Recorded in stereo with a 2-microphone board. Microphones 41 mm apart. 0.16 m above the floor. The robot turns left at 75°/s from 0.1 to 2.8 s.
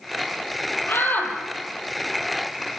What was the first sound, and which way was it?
A shout, 70° left.